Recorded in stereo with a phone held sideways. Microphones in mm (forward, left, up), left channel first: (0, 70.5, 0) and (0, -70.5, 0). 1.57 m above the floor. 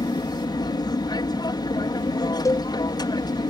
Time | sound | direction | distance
0.0 | an aircraft | 30° left (ahead or behind) | ?
2.5 | a cowbell | 25° left (ahead or behind) | ?